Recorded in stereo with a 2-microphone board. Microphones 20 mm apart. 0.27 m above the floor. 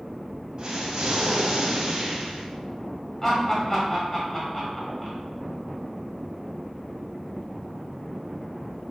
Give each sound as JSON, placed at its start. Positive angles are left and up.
{"t": 0.6, "sound": "an explosion", "side_deg": -45, "distance_m": 1.1}
{"t": 3.2, "sound": "laughter", "side_deg": 20, "distance_m": 1.6}